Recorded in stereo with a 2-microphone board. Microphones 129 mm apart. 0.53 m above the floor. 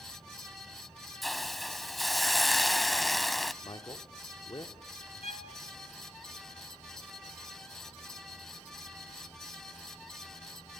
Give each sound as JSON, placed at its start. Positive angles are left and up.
{"t": 1.2, "sound": "a hiss", "side_deg": 0, "distance_m": 0.5}
{"t": 3.6, "sound": "a man speaking", "side_deg": 35, "distance_m": 1.4}
{"t": 5.2, "sound": "a violin", "side_deg": 55, "distance_m": 1.5}